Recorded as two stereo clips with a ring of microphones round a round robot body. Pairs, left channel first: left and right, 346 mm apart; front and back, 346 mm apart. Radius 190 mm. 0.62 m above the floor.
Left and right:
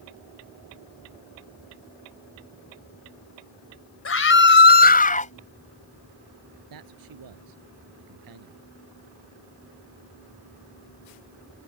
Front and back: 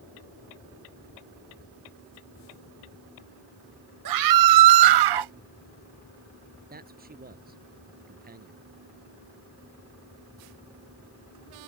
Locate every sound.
4.0 s a scream: 140° left; by 5.3 s 160° left
6.7 s a man speaking: 115° right